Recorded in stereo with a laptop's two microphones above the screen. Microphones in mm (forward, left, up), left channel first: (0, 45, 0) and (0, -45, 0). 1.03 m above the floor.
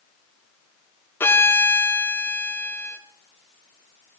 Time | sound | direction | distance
1.2 | a violin | 25° left (ahead or behind) | 0.5 m